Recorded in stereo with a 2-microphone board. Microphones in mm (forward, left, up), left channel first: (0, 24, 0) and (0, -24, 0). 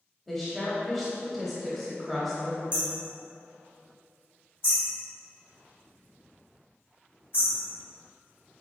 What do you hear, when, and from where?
0.3 s a woman speaking: 5° left (ahead or behind), 0.9 m
2.7 s hammering: 55° left (ahead or behind), 2.0 m